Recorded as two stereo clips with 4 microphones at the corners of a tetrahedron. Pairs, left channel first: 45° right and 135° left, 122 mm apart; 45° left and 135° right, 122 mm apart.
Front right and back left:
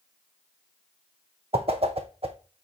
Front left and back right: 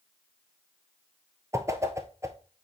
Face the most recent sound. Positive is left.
turn(degrees=160)